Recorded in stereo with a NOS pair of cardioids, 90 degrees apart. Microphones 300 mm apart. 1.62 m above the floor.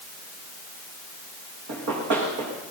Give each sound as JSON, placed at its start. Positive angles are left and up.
{"t": 1.7, "sound": "running footsteps", "azimuth_deg": -70, "distance_m": 7.5}